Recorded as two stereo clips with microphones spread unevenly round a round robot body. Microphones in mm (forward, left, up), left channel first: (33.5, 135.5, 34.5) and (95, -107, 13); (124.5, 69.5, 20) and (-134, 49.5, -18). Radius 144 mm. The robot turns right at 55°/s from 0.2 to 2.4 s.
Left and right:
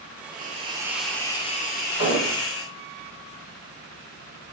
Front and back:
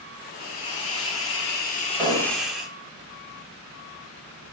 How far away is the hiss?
About 0.9 m.